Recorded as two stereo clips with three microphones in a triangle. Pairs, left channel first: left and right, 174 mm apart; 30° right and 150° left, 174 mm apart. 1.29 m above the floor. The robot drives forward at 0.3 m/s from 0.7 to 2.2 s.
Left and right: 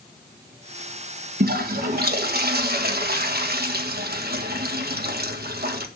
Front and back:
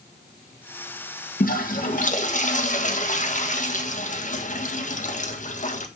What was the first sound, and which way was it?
A toilet flushing, 65° right.